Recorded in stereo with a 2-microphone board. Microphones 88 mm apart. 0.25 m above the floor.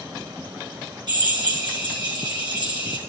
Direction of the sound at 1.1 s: 60° right (ahead or behind).